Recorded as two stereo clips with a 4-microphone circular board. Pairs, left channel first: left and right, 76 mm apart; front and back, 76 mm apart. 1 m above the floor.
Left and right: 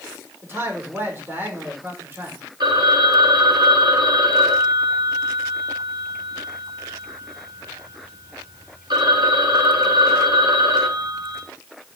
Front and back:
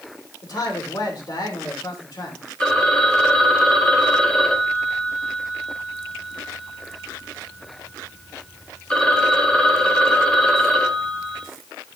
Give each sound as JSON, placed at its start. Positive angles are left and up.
{"t": 0.4, "sound": "a man speaking", "azimuth_deg": -30, "distance_m": 3.0}
{"t": 2.6, "sound": "a phone ringing", "azimuth_deg": -80, "distance_m": 1.9}